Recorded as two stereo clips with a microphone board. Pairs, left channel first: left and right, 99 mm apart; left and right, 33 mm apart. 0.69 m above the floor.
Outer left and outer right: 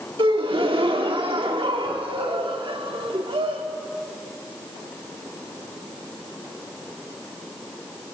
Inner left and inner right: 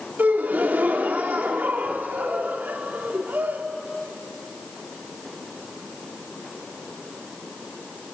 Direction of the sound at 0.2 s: 65° right (ahead or behind).